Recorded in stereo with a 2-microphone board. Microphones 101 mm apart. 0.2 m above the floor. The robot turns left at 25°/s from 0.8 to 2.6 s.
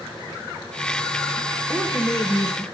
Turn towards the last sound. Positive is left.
turn(degrees=35)  # may be behind; listen again after turning